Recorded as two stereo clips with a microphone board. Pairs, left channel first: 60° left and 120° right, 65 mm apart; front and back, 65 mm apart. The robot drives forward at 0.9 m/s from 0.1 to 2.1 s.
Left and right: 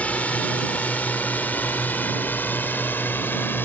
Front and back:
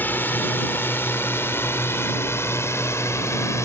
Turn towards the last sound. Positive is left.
turn(degrees=15)